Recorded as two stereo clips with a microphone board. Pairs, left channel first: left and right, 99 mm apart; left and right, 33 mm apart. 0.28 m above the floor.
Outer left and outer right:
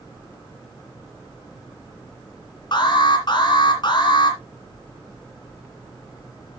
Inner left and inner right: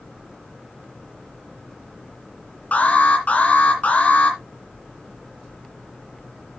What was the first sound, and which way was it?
An alarm, 50° left (ahead or behind).